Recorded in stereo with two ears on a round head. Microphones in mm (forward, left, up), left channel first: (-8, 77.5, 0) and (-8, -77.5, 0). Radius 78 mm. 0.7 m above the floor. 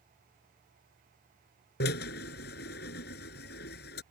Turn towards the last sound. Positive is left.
turn(degrees=65)  # may be behind; listen again after turning